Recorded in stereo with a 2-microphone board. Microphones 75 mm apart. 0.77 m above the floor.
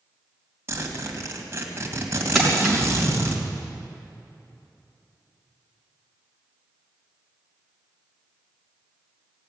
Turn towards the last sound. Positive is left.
turn(degrees=-5)  # may be behind; listen again after turning